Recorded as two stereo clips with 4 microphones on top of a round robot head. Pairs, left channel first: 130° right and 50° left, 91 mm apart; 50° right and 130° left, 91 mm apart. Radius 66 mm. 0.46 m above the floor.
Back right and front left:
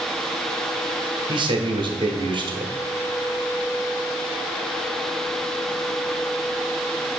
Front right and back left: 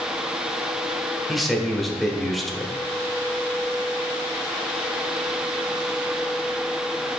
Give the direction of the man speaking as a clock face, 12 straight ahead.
11 o'clock.